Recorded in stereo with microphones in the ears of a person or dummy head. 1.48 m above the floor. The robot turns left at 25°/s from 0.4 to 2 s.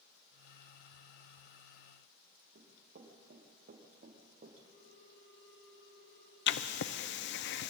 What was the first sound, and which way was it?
Running footsteps, 60° right (ahead or behind).